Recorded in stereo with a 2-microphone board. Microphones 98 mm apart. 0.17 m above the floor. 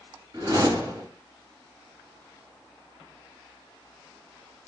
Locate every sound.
0.3 s a whoosh: 40° right (ahead or behind), 1.7 m